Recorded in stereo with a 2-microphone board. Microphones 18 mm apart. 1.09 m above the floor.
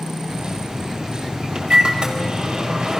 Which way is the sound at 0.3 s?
65° right (ahead or behind).